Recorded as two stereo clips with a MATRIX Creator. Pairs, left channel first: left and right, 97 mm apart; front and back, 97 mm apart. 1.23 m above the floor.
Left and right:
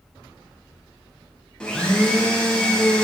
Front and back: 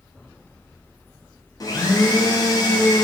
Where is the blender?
15° left, 0.6 m.